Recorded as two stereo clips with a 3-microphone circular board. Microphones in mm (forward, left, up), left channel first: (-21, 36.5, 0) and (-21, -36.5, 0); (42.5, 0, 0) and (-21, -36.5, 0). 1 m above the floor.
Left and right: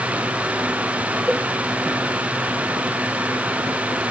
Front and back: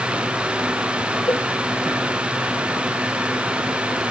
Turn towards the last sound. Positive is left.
turn(degrees=-5)